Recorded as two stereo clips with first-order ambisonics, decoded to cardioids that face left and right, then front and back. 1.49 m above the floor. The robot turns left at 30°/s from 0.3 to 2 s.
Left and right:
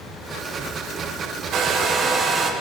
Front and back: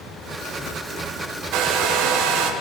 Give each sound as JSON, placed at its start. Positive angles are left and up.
{"t": 1.5, "sound": "a hair dryer", "azimuth_deg": -140, "distance_m": 1.1}